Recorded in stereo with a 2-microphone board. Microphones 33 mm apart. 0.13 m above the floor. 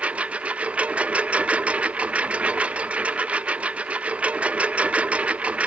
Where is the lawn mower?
40° right (ahead or behind).